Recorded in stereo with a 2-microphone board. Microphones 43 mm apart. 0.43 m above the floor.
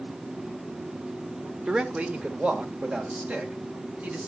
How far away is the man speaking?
About 1.1 m.